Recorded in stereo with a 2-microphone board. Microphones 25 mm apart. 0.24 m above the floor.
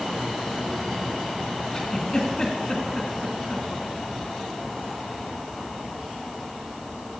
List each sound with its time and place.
1.7 s a giggle: 30° left (ahead or behind), 2.5 m